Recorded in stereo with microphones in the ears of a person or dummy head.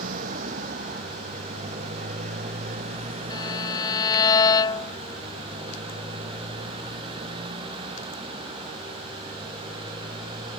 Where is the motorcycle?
50° right (ahead or behind); by 10.6 s 25° right (ahead or behind).